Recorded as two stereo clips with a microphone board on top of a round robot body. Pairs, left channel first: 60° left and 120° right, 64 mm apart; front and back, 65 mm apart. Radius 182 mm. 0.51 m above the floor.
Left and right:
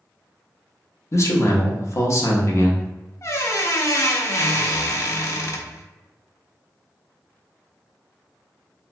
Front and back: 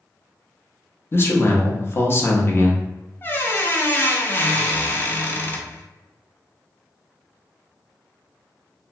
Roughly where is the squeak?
Ahead left.